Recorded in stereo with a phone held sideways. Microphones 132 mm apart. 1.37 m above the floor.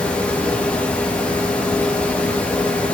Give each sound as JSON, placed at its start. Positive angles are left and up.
{"t": 0.0, "sound": "a fan", "side_deg": 10, "distance_m": 3.0}